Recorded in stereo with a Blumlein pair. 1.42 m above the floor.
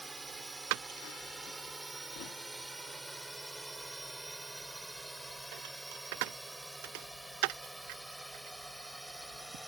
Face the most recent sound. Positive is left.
turn(degrees=0)